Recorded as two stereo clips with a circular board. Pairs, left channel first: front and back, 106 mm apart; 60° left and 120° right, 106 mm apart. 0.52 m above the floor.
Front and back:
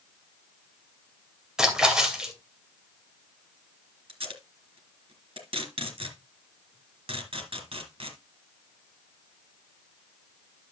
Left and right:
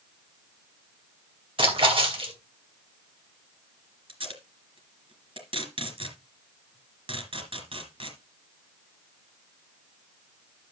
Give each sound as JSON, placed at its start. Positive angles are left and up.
{"t": 1.6, "sound": "a splash", "azimuth_deg": -95, "distance_m": 2.5}
{"t": 4.1, "sound": "tape being pulled", "azimuth_deg": -150, "distance_m": 3.0}